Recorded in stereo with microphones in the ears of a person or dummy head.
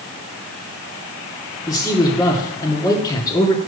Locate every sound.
1.7 s a man speaking: 15° left (ahead or behind), 1.8 m